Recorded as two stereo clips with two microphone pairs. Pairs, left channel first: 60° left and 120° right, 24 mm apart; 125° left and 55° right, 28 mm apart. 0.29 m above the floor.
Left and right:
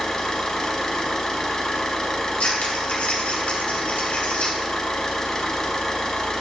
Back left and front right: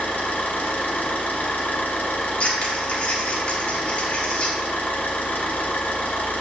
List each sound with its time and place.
0.0 s an engine running: 120° left, 0.8 m
2.4 s scissors: 80° left, 1.1 m